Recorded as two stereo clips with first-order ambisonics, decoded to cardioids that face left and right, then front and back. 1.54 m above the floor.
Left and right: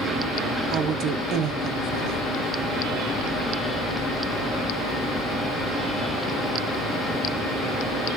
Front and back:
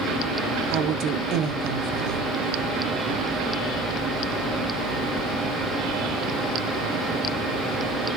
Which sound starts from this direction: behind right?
A woman speaking, at 0.7 s.